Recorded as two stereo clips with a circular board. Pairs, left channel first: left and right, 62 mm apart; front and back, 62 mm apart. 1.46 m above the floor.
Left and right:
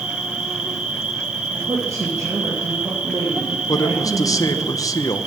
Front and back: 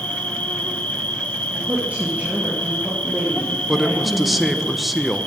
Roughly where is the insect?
Ahead right.